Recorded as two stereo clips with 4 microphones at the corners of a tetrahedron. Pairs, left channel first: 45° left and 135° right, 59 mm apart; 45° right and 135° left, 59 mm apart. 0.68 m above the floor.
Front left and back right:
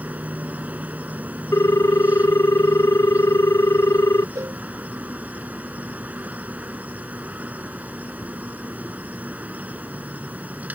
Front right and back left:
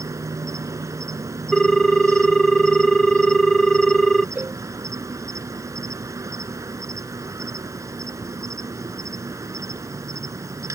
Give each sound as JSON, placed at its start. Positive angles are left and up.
{"t": 0.0, "sound": "an insect", "azimuth_deg": 160}
{"t": 1.5, "sound": "a ringtone", "azimuth_deg": 30}
{"t": 4.3, "sound": "a cowbell", "azimuth_deg": -160}